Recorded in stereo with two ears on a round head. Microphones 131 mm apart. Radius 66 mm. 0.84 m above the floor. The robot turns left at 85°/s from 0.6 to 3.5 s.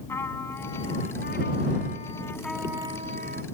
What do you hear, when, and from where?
0.1 s a trumpet: 160° left; by 3.4 s 80° right